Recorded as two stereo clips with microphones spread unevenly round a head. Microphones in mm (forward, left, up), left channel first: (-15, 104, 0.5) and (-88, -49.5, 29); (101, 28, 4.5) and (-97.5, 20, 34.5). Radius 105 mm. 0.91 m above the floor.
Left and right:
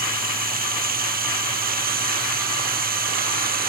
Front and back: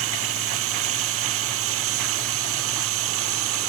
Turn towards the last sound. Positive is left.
turn(degrees=-150)